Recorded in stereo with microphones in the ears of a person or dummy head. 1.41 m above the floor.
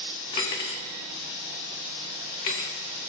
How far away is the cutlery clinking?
About 0.6 m.